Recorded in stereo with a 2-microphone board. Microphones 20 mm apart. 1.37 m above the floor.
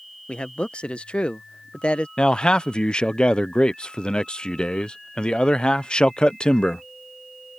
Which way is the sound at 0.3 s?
70° left (ahead or behind).